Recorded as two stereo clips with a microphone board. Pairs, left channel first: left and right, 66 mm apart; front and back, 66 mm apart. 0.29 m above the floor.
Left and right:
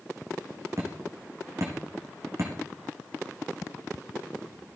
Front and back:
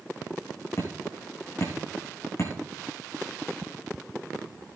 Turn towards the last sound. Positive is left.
turn(degrees=-45)